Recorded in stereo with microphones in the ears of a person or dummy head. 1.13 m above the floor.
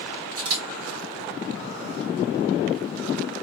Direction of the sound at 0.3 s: 85° right.